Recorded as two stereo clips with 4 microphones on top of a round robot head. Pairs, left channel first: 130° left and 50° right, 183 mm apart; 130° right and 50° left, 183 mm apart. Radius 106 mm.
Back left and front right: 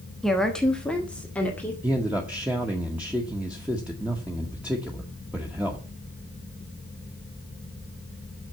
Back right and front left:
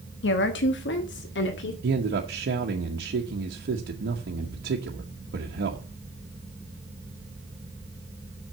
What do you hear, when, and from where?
0.2 s a woman speaking: 145° right, 1.2 m; by 1.7 s 150° right, 2.5 m
1.8 s a man speaking: 30° left, 1.2 m